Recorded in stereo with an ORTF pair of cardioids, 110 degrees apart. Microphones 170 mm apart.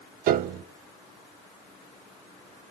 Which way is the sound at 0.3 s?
70° right.